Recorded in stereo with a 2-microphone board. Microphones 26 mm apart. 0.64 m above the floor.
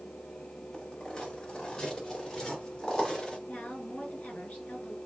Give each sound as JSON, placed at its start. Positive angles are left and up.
{"t": 0.7, "sound": "footsteps", "side_deg": 30, "distance_m": 6.0}
{"t": 3.5, "sound": "a woman speaking", "side_deg": 60, "distance_m": 5.0}